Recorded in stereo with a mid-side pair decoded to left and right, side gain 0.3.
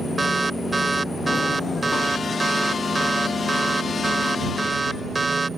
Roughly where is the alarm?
Ahead right.